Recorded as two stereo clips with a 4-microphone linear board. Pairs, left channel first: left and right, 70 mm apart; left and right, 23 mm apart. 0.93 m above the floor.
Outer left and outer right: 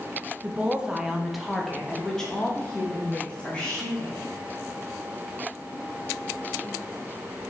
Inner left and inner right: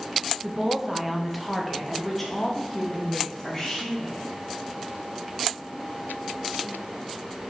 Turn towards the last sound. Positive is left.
turn(degrees=15)  # may be behind; listen again after turning